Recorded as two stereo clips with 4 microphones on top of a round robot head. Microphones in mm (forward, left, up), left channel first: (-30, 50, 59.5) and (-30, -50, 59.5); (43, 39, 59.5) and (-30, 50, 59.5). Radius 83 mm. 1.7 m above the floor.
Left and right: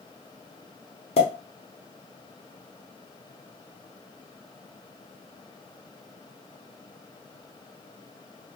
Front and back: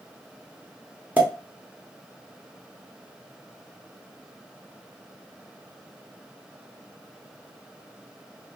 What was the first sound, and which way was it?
A pop, 105° left.